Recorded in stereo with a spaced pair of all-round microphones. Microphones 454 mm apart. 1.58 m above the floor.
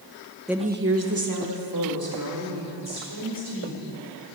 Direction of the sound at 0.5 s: Centre (ahead or behind).